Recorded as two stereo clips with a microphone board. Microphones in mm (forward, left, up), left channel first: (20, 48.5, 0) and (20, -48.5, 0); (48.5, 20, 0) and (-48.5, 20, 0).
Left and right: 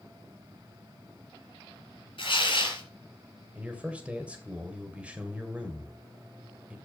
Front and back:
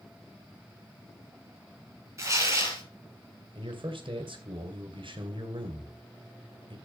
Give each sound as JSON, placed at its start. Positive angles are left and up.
{"t": 2.2, "sound": "tearing paper", "azimuth_deg": 120, "distance_m": 4.5}
{"t": 3.5, "sound": "a man speaking", "azimuth_deg": -165, "distance_m": 2.0}